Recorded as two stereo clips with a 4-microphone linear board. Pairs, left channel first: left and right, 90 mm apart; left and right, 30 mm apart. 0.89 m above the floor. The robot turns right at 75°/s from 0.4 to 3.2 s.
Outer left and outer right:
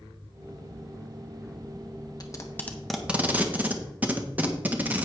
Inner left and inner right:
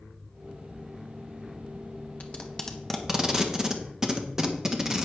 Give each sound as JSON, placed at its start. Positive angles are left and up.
{"t": 2.2, "sound": "tape being pulled", "side_deg": 45, "distance_m": 1.3}